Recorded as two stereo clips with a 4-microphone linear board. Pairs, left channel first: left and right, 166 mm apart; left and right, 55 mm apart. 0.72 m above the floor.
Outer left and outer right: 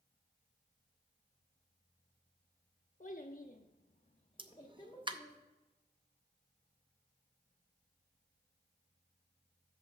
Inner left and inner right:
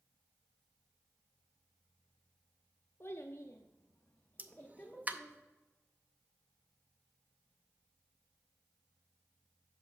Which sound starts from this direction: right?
A pop, at 4.4 s.